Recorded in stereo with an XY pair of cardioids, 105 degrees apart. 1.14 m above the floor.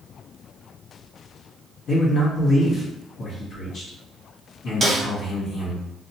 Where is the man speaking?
60° left, 1.2 m.